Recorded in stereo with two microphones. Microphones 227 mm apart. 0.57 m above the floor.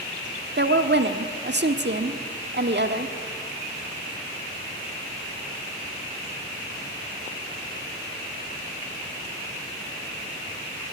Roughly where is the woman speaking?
Right.